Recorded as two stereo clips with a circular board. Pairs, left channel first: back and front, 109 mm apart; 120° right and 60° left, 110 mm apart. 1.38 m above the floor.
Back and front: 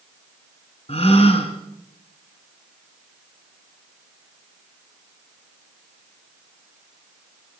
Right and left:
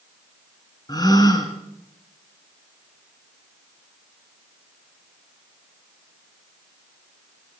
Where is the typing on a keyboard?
No typing on a keyboard in this recording.